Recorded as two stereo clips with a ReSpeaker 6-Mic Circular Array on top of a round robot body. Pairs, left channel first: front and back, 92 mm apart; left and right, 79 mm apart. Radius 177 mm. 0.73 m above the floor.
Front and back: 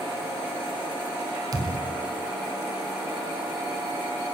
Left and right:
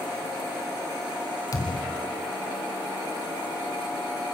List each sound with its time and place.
1.5 s a thud: 130° left, 1.0 m